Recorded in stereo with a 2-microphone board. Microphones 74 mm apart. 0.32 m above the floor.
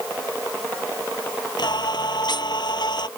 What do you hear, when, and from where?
1.6 s singing: 70° left (ahead or behind)